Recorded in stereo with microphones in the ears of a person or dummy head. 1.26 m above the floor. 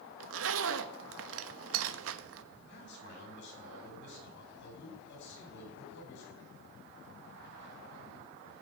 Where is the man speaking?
65° left (ahead or behind), 8.5 m.